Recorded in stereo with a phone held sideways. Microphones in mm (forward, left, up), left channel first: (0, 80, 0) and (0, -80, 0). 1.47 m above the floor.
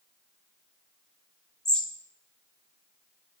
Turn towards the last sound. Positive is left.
turn(degrees=5)  # may be behind; listen again after turning